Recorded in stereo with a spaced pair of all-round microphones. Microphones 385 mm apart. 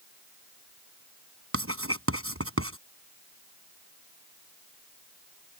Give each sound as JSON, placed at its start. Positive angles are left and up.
{"t": 1.5, "sound": "writing", "side_deg": -35}